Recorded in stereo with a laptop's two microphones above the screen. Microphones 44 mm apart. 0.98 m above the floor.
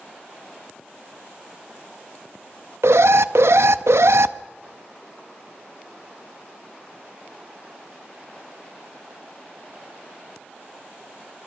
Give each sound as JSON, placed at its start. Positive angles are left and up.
{"t": 2.8, "sound": "an alarm", "side_deg": -75, "distance_m": 0.5}